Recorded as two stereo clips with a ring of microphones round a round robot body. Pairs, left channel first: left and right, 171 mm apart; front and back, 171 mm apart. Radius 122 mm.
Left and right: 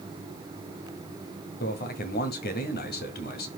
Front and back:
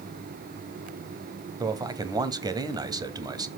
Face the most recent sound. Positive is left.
turn(degrees=115)